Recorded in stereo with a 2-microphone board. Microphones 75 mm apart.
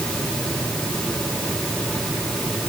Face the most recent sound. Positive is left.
No sound to turn to.